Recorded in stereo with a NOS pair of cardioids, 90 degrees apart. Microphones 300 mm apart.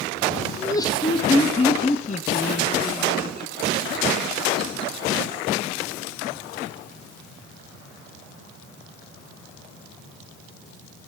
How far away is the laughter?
About 2 m.